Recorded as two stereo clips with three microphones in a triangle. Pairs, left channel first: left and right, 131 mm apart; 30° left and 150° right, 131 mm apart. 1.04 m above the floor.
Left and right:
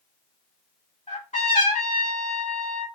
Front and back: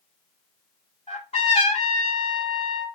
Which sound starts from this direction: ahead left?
A trumpet, at 1.1 s.